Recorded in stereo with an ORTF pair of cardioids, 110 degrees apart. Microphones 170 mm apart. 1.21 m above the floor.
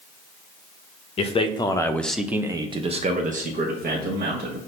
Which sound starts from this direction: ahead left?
A man speaking, at 1.2 s.